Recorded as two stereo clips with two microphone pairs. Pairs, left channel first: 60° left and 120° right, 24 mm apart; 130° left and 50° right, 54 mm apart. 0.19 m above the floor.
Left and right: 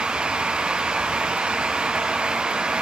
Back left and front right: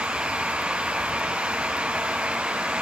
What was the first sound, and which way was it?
Only background noise.